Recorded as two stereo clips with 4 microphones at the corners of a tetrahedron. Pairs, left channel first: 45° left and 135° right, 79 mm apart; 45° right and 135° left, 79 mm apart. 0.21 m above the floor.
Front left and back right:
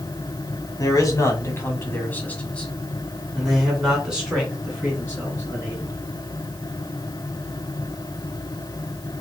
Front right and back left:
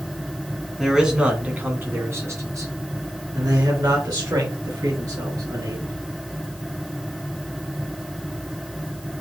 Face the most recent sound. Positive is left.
turn(degrees=155)